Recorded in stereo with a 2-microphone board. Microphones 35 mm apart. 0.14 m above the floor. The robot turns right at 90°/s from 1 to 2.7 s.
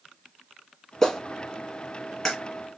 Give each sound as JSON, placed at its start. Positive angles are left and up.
{"t": 1.0, "sound": "a clap", "side_deg": 15, "distance_m": 1.2}